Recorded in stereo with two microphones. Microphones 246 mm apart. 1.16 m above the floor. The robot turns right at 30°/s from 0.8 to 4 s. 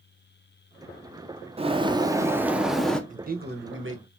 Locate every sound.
1.6 s a bird: 35° right, 0.5 m; by 3.0 s 5° left, 0.5 m
3.1 s a man speaking: 30° right (ahead or behind), 0.9 m; by 4.1 s 60° right (ahead or behind), 0.9 m